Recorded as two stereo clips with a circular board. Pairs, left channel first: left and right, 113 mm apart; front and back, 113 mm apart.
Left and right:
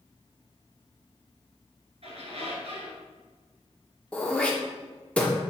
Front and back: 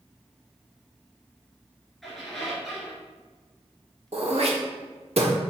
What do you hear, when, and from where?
2.0 s a squeak: 90° right, 2 m
4.1 s throat clearing: 170° left, 1.1 m